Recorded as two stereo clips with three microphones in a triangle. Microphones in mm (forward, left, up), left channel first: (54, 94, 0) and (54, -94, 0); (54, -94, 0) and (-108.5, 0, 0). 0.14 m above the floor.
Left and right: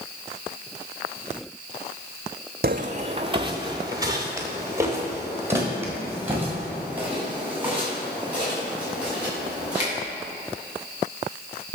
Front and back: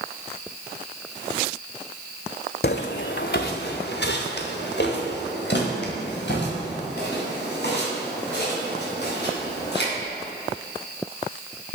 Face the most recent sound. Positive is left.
turn(degrees=-5)